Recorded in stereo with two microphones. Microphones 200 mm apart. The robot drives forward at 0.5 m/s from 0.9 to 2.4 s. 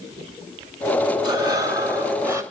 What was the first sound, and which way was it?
Breathing, 20° right (ahead or behind).